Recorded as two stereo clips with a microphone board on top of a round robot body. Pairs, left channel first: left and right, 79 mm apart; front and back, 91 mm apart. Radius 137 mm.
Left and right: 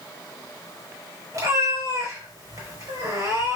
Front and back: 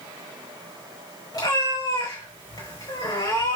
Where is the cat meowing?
45° right, 4.5 m.